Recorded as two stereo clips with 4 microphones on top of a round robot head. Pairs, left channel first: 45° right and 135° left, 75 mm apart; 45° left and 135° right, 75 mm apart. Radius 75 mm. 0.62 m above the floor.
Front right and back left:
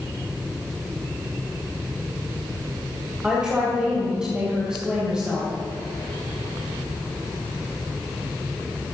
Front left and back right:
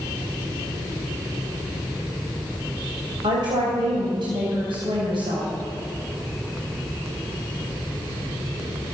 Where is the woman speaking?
145° right, 3.5 m.